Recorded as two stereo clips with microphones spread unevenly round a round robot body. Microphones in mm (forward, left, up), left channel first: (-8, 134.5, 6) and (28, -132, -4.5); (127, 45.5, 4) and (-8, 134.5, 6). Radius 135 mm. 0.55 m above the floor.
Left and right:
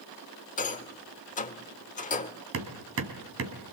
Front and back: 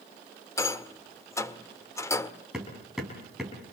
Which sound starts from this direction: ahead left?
A rattle, at 0.6 s.